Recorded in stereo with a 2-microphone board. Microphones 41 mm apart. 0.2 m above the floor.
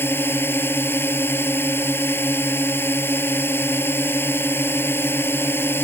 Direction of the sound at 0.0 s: 70° left (ahead or behind).